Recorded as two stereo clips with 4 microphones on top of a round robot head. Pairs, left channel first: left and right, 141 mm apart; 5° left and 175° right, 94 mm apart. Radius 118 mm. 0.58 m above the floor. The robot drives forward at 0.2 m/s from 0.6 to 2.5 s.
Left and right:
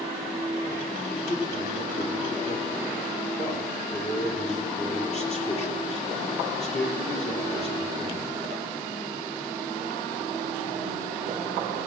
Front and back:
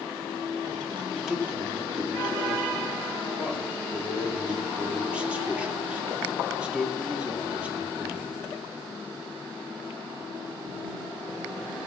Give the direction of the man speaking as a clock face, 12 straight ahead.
9 o'clock.